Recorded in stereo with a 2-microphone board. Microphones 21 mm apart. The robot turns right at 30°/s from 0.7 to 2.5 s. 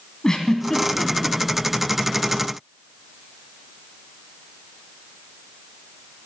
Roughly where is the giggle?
Left.